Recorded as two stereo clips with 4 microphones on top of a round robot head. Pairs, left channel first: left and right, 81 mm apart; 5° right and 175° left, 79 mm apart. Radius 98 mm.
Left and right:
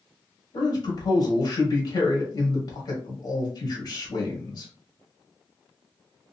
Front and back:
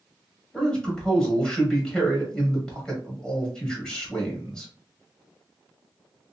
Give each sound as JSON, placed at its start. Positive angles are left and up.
{"t": 0.5, "sound": "a man speaking", "azimuth_deg": 75, "distance_m": 1.5}